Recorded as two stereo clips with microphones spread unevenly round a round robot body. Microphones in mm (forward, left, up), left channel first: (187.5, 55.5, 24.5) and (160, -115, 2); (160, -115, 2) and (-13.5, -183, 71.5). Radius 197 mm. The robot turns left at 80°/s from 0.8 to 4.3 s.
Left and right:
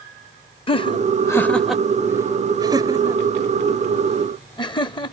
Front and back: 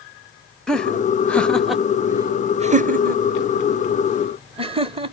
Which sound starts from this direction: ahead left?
Laughter, at 0.7 s.